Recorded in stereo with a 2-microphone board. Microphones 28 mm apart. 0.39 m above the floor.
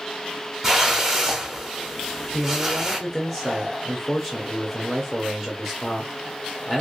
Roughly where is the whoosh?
Centre.